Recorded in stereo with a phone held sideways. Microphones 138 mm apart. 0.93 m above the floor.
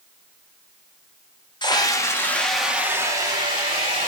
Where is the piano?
I don't hear a piano.